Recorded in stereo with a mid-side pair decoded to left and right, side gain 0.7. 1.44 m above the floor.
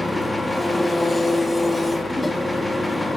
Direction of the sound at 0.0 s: 10° left.